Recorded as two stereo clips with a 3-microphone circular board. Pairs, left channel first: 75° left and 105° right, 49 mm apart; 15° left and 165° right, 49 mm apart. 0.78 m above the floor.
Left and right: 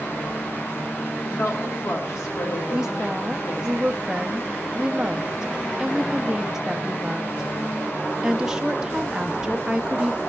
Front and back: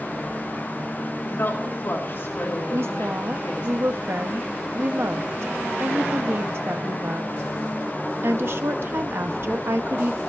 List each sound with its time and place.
1.2 s a woman speaking: 55° left, 3.5 m
2.7 s a woman speaking: straight behind, 0.8 m